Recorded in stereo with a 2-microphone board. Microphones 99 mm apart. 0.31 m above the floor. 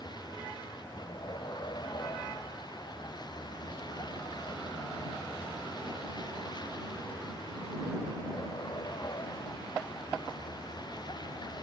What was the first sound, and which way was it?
A vehicle, 45° left (ahead or behind).